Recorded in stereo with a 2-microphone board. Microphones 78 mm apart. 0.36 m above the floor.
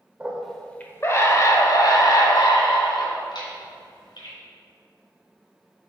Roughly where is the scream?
Centre.